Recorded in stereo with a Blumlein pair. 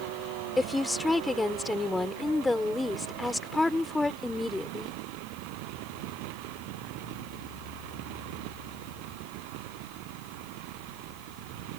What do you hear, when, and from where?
0.6 s a woman speaking: 5° left